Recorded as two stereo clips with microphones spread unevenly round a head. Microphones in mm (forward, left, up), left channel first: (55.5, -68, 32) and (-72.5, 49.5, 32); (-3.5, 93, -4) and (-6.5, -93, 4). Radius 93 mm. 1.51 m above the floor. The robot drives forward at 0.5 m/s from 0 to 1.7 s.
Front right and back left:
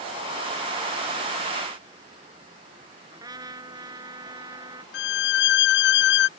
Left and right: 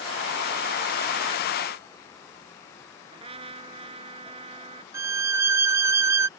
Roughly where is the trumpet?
Behind right.